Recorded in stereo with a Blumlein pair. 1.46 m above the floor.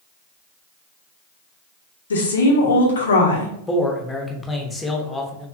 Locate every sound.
2.1 s a woman speaking: 65° left, 0.9 m
3.7 s a man speaking: 10° left, 0.7 m